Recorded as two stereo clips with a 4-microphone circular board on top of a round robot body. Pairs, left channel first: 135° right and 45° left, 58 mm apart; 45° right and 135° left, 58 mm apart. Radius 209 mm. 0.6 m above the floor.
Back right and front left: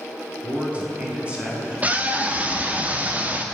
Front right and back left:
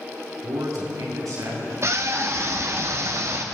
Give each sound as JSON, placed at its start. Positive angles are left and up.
{"t": 0.4, "sound": "a man speaking", "azimuth_deg": 110, "distance_m": 8.0}
{"t": 1.8, "sound": "a scream", "azimuth_deg": 105, "distance_m": 2.0}